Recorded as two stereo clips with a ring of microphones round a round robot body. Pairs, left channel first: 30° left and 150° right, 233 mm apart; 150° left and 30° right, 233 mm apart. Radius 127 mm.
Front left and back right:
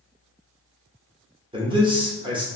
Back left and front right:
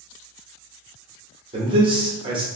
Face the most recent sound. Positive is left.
turn(degrees=-90)